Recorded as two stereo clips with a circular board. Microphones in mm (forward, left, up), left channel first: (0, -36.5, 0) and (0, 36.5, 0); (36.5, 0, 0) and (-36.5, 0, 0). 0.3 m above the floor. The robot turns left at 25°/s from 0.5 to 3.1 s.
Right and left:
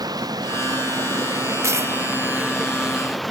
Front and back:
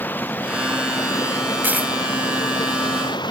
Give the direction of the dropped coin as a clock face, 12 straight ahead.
8 o'clock.